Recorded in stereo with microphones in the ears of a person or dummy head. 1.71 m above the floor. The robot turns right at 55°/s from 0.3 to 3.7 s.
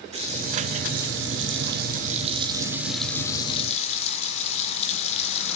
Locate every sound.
0.1 s a running tap: 150° right, 3.5 m; by 5.6 s 40° left, 3.5 m